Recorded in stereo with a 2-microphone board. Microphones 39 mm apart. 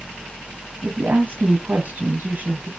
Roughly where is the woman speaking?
Right.